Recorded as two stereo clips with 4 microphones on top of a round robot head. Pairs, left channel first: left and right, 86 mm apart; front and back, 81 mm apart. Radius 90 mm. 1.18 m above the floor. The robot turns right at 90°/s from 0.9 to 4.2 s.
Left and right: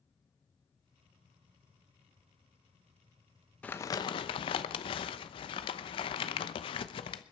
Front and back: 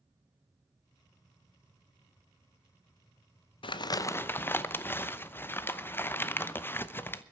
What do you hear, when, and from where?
3.6 s crumpling: 10° left, 0.9 m; by 7.2 s 65° left, 0.9 m